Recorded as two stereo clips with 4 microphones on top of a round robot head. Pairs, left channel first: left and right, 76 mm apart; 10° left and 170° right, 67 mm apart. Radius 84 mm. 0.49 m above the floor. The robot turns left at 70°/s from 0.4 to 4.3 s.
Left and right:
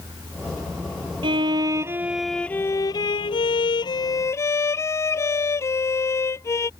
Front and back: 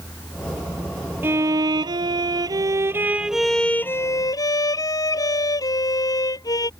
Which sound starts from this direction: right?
A violin, at 1.2 s.